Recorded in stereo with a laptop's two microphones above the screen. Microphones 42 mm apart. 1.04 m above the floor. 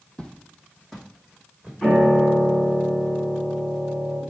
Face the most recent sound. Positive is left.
turn(degrees=20)  # may be behind; listen again after turning